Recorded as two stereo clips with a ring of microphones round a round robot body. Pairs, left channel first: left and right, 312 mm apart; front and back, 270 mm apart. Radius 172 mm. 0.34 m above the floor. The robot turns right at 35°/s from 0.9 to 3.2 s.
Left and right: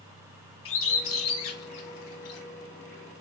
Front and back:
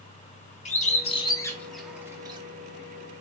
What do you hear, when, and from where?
0.7 s a bird: 60° left, 0.5 m; by 2.4 s 110° left, 0.5 m